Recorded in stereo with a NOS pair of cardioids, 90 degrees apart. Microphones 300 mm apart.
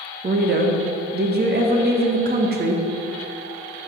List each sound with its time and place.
0.2 s a woman speaking: 35° right, 1.4 m